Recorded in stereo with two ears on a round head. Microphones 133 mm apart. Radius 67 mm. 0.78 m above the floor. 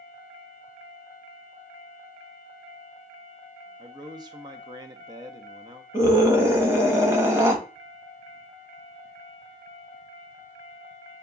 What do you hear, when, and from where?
3.8 s a man speaking: 30° right (ahead or behind), 0.7 m
5.9 s a scream: 20° right (ahead or behind), 1.1 m